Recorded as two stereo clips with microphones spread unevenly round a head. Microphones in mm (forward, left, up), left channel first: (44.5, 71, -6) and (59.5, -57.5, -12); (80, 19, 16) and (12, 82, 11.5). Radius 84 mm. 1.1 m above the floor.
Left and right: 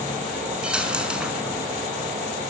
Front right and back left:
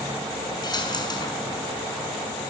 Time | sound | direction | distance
0.6 | a dropped coin | straight ahead | 5.5 m